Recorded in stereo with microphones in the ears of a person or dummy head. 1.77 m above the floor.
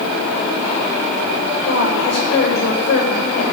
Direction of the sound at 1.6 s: 65° left (ahead or behind).